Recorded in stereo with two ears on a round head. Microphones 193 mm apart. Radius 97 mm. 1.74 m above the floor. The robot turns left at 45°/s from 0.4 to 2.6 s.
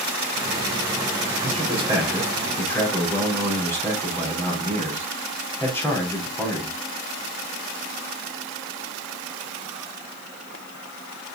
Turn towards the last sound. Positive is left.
turn(degrees=170)